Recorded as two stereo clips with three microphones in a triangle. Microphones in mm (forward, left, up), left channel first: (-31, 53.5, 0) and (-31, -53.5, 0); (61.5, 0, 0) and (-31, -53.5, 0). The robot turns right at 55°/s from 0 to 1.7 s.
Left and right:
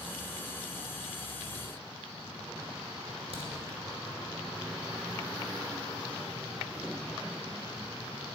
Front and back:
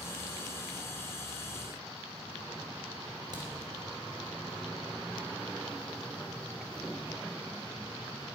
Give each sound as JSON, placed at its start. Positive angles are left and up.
{"t": 3.3, "sound": "a crack", "azimuth_deg": -105, "distance_m": 3.5}